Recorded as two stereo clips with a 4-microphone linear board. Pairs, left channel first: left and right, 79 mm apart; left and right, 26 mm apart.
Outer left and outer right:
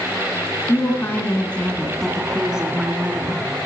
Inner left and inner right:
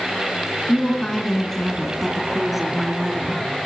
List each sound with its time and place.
0.7 s a woman speaking: 35° left (ahead or behind), 2.5 m; by 3.4 s 25° right (ahead or behind), 3 m